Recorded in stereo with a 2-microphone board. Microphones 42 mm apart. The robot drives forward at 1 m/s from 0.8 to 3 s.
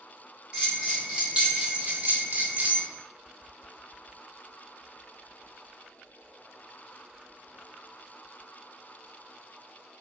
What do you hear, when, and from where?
0.5 s a bell: 20° right (ahead or behind), 1.9 m; by 2.8 s 40° right (ahead or behind), 0.9 m